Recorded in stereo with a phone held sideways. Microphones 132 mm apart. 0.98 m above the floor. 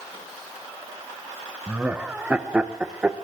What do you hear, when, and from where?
1.7 s laughter: 10° right (ahead or behind), 0.8 m